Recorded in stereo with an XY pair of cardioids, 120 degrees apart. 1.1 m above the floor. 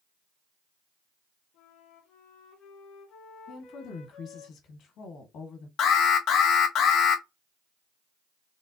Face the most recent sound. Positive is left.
turn(degrees=70)